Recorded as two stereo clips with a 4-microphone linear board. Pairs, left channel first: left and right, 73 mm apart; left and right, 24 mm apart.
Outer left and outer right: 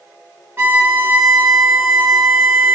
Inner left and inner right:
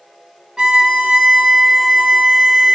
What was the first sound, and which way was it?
A violin, 30° right (ahead or behind).